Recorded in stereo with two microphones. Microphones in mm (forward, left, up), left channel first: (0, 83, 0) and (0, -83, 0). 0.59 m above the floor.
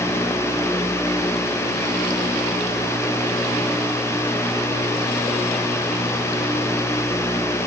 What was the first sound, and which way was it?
Only background noise.